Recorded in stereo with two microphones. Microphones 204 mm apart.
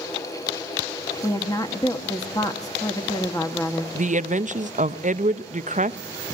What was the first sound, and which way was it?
A woman speaking, 20° left (ahead or behind).